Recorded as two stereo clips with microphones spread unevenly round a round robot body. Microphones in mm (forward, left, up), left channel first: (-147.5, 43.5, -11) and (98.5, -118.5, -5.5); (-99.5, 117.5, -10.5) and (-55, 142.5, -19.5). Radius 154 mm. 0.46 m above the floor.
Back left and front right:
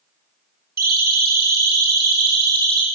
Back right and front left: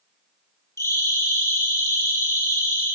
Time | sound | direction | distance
0.8 | a siren | 90° right | 7 m